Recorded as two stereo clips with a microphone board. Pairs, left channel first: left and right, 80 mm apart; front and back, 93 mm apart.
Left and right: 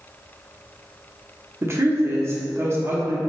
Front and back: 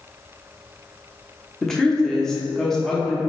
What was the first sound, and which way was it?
A woman speaking, 80° right.